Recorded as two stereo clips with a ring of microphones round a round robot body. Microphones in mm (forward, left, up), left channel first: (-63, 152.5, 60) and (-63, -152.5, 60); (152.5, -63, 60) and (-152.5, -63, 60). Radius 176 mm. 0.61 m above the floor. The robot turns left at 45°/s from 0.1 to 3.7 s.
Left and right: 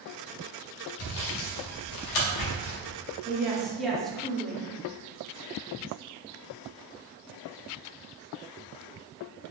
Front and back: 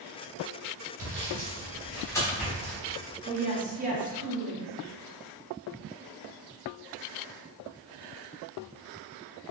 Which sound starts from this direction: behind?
A woman speaking, at 3.2 s.